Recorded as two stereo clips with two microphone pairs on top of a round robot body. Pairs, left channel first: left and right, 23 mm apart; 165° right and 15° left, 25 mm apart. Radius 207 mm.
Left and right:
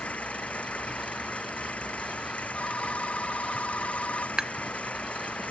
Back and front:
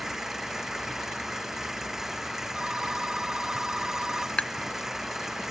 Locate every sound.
0.0 s an engine running: 90° left
2.5 s a phone ringing: 75° left
4.4 s tapping: 145° right